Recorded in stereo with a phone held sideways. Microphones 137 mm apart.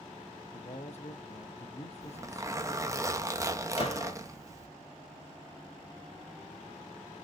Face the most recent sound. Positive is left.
turn(degrees=45)  # may be behind; listen again after turning